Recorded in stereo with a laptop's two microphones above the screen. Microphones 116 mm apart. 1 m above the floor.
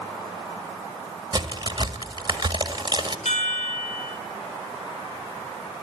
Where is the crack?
40° right (ahead or behind), 2.0 m.